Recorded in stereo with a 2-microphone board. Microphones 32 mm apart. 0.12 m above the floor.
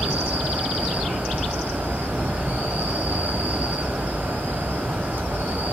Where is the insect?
80° right, 0.8 m.